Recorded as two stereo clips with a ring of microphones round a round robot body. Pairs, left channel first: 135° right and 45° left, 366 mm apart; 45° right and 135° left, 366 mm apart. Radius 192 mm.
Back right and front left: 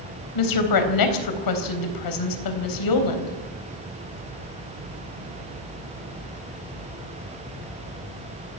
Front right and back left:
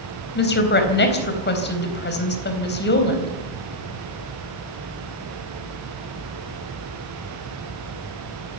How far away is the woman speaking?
About 4 m.